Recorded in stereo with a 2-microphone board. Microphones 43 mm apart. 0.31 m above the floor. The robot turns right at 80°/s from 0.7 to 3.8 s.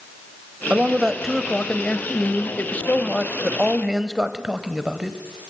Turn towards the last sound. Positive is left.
turn(degrees=-160)